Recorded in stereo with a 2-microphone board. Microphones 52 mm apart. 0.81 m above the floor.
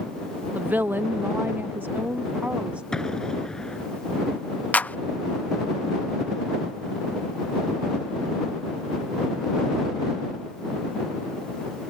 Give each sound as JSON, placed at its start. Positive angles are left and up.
{"t": 0.6, "sound": "a woman speaking", "side_deg": -30}
{"t": 2.9, "sound": "an explosion", "side_deg": 15}
{"t": 4.7, "sound": "a clap", "side_deg": 30}